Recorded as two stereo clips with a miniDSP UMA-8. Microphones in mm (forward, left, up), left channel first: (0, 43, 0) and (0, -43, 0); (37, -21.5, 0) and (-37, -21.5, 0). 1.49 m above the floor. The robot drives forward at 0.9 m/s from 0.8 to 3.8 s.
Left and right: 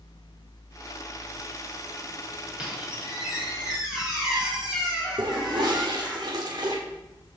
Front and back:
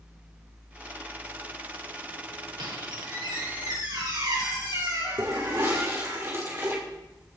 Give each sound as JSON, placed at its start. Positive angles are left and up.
{"t": 2.6, "sound": "a squeak", "azimuth_deg": -170, "distance_m": 3.0}
{"t": 5.2, "sound": "a toilet flushing", "azimuth_deg": -125, "distance_m": 2.5}